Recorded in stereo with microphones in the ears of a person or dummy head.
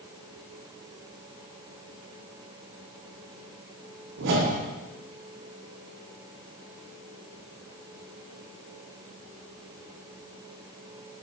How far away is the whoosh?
About 0.6 m.